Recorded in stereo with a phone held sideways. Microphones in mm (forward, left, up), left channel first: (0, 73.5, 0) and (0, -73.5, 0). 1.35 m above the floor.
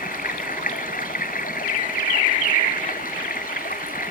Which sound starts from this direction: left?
Running water, at 0.0 s.